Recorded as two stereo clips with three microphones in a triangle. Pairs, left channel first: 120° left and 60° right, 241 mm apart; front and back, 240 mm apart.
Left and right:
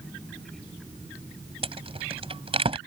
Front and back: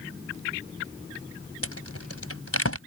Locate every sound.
1.6 s a rattle: 5° left